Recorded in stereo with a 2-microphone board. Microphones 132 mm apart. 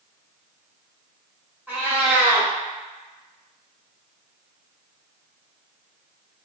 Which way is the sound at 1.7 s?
15° right (ahead or behind).